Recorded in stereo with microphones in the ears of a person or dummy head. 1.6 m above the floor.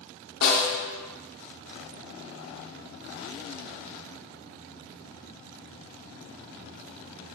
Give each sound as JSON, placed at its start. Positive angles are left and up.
{"t": 0.4, "sound": "a snare drum", "side_deg": 75, "distance_m": 0.7}